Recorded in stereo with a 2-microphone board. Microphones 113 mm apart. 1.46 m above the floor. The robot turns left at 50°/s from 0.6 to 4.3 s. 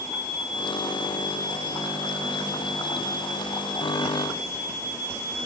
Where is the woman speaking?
No woman speaking in this recording.